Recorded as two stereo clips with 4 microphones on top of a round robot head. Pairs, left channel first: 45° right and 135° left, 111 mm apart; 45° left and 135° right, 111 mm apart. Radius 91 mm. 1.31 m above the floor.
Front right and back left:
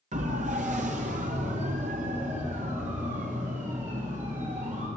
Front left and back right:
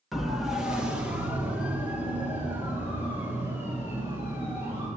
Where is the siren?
135° left, 2.5 m; by 4.9 s 150° left, 9 m.